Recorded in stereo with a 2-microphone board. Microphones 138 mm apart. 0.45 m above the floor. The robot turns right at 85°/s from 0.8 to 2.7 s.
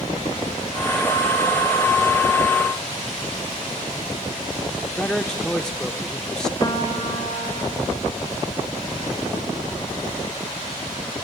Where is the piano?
30° left (ahead or behind), 2 m.